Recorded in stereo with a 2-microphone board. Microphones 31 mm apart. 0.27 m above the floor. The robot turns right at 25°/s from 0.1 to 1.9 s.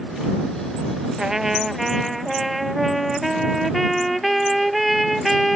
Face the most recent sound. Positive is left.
turn(degrees=0)  # may be behind; listen again after turning